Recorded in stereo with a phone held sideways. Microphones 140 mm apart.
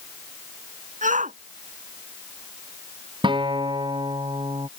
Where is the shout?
65° right (ahead or behind).